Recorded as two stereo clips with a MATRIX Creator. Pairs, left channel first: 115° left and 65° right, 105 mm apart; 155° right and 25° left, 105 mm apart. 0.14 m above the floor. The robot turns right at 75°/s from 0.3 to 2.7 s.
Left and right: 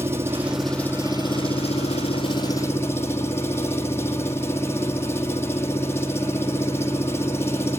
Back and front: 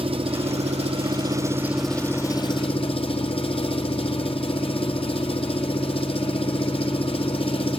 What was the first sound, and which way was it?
An engine running, straight ahead.